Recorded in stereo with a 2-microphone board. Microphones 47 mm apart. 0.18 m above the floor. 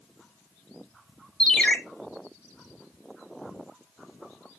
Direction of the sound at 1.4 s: 20° left (ahead or behind).